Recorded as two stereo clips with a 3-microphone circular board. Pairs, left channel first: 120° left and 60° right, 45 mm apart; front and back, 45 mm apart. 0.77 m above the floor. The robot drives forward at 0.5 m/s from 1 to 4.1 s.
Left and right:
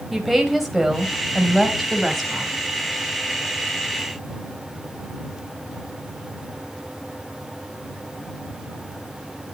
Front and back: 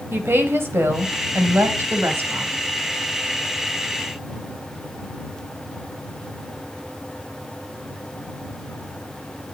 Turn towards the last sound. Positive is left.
turn(degrees=-160)